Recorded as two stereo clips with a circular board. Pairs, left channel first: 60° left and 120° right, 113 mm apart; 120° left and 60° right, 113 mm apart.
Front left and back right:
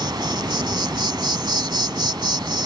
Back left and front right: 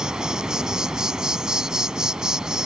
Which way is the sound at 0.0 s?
140° right.